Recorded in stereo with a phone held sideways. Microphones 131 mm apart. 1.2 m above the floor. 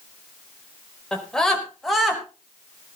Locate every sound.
1.1 s a scream: 5° left (ahead or behind), 4.5 m; by 2.2 s 5° right (ahead or behind), 5 m